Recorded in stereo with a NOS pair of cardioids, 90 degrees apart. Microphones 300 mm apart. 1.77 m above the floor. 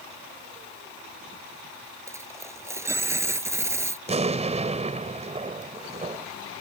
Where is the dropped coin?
10° right.